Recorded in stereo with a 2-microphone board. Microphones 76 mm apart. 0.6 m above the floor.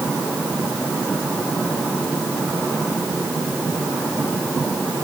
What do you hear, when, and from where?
Only background noise.